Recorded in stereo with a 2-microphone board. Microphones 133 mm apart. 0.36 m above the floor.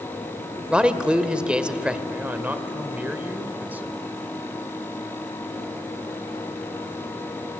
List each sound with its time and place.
0.7 s a man speaking: 10° right (ahead or behind), 1.2 m
2.1 s a man speaking: 15° right (ahead or behind), 1.5 m